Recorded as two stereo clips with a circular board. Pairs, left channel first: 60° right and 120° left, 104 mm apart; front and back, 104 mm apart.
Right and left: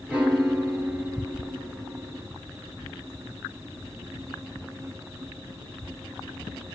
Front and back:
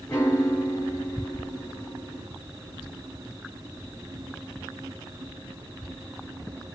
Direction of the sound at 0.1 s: 50° left.